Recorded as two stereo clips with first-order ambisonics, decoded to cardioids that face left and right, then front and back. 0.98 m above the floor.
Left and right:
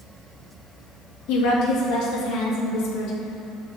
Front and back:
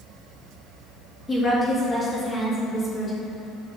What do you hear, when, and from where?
1.3 s a woman speaking: 75° left, 1.8 m